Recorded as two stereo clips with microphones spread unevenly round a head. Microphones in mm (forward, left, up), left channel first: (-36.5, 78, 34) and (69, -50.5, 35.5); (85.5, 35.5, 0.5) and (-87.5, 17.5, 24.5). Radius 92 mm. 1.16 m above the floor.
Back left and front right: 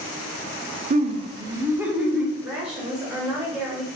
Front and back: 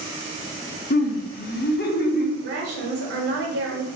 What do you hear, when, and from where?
0.9 s laughter: 15° right, 0.5 m; by 2.3 s 35° left, 0.9 m
2.4 s a woman speaking: 135° right, 0.9 m